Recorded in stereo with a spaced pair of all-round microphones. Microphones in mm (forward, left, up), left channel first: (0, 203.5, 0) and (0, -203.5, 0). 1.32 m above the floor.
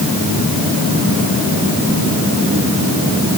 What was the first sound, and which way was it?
Only background noise.